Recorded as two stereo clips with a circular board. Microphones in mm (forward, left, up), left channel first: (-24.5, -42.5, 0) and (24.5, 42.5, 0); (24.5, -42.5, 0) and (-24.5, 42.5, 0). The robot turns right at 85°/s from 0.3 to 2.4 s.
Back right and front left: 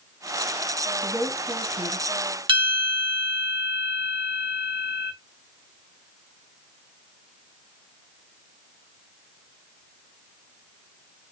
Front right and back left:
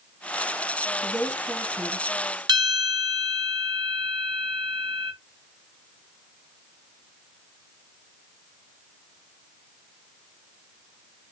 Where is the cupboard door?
No cupboard door in this recording.